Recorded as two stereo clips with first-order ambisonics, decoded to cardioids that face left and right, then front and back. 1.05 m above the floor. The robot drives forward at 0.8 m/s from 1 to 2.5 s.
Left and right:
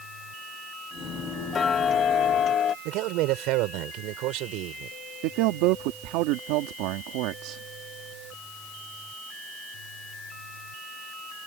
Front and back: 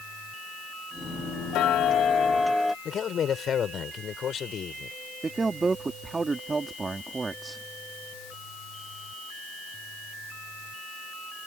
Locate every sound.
1.5 s ticking: 30° left; by 2.8 s 85° left
2.9 s a man speaking: 60° right
5.2 s a man speaking: 105° right